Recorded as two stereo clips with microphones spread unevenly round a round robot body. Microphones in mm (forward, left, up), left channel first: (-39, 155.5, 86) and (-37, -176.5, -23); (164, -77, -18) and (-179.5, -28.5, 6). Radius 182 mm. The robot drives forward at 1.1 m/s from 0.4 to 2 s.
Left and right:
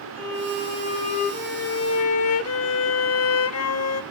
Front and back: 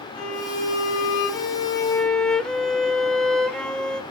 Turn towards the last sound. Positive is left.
turn(degrees=85)